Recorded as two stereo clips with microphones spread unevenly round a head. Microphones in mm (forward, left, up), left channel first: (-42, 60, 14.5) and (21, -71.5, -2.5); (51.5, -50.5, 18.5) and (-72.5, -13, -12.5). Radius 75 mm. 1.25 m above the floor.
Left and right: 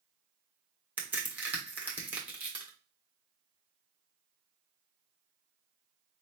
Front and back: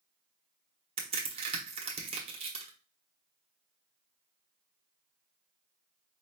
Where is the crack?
145° right, 1.3 m.